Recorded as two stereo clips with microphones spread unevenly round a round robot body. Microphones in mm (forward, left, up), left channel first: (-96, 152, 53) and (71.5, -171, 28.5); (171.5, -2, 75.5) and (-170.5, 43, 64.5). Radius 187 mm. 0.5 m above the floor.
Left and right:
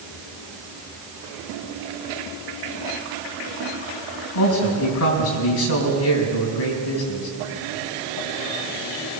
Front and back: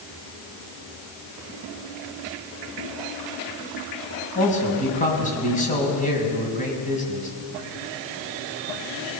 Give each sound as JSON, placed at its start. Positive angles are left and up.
{"t": 4.3, "sound": "a man speaking", "azimuth_deg": 60, "distance_m": 5.0}